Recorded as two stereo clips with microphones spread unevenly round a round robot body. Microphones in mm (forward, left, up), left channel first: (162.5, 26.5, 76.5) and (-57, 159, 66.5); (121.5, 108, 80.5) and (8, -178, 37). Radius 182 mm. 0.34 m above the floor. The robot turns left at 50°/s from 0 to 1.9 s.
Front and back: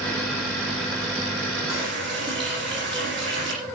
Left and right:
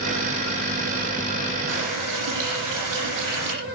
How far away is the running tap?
About 9 m.